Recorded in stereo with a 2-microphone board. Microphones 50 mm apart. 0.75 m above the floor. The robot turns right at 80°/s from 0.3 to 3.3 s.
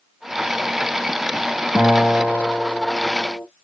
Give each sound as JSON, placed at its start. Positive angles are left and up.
{"t": 1.8, "sound": "a guitar", "azimuth_deg": -70, "distance_m": 1.7}